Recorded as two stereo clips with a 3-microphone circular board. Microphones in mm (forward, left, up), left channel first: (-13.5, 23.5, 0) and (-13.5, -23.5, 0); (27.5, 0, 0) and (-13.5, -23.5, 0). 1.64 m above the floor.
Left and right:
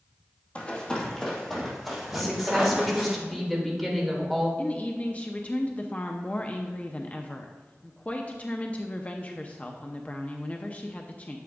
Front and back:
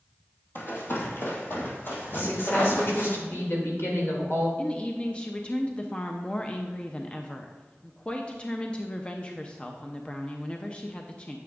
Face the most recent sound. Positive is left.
turn(degrees=70)